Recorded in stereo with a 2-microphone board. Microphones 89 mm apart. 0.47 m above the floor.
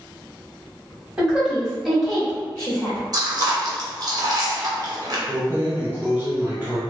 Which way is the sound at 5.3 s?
30° right (ahead or behind).